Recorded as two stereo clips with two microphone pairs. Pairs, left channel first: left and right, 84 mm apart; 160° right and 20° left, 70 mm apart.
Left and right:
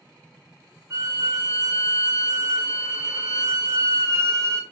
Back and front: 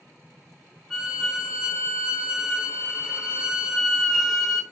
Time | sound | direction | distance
0.9 | a violin | 60° right | 0.9 m